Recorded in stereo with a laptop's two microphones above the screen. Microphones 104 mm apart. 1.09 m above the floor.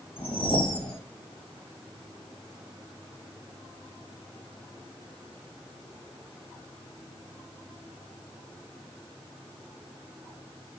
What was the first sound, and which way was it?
A whoosh, 60° left (ahead or behind).